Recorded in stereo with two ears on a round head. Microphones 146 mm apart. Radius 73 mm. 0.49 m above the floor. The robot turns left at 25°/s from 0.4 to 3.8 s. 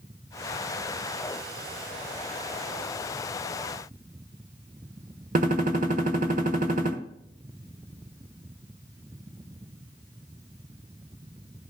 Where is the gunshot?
50° right (ahead or behind), 1.3 m.